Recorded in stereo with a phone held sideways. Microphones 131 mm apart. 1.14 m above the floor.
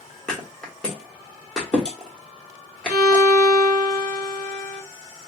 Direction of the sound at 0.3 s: 5° left (ahead or behind).